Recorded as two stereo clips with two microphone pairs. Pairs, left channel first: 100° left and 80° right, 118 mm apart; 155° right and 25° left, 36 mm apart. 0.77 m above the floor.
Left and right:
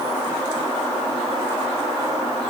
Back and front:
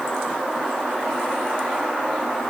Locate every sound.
Only background noise.